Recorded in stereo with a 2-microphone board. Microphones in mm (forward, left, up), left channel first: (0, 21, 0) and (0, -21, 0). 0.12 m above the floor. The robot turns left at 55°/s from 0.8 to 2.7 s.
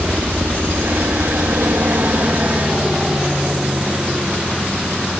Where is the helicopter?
55° right (ahead or behind); by 5.2 s 20° right (ahead or behind).